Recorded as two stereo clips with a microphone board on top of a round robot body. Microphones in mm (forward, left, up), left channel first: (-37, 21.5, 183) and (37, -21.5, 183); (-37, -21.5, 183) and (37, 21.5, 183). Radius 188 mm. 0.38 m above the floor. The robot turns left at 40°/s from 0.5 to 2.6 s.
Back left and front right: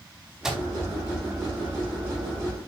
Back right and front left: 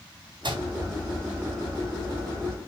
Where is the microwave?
55° left, 4 m; by 0.7 s 45° left, 4 m.